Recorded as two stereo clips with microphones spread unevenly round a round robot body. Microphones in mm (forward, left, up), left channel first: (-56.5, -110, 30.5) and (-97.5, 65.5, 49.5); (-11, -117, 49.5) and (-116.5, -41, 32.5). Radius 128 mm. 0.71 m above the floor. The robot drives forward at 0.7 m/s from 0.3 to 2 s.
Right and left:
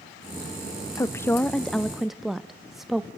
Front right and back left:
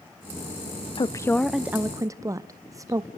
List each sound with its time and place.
1.0 s a woman speaking: 45° right, 0.6 m; by 3.1 s 165° right, 0.8 m